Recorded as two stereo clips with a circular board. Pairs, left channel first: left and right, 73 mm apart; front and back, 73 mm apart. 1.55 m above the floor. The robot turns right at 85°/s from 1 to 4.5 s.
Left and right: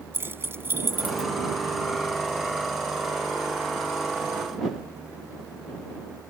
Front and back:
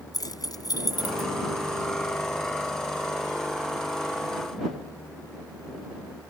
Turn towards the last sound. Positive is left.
turn(degrees=-95)